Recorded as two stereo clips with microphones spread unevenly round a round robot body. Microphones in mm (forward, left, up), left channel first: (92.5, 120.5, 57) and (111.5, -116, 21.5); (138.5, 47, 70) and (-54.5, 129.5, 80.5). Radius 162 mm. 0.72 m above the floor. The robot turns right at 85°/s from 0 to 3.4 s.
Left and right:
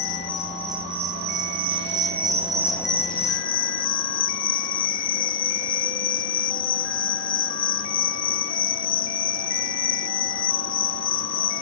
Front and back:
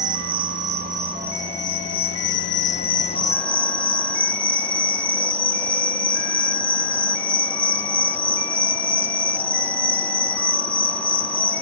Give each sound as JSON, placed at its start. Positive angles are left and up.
{"t": 0.0, "sound": "an insect", "azimuth_deg": 130, "distance_m": 1.0}